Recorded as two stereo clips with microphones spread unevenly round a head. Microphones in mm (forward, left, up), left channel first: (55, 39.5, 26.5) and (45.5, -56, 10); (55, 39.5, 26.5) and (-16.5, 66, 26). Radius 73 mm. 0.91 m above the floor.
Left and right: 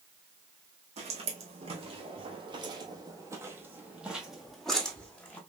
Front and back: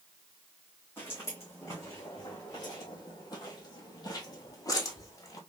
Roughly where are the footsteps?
Right.